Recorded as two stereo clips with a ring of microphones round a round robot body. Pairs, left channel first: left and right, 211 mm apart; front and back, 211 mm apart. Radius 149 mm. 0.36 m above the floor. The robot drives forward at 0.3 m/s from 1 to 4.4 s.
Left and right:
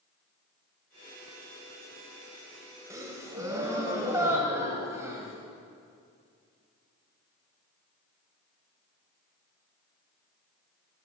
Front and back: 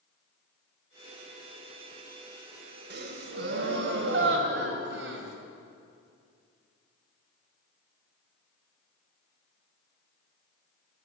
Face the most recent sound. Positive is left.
turn(degrees=-170)